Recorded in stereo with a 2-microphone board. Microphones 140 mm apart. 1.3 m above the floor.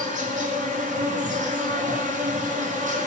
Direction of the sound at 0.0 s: 65° right (ahead or behind).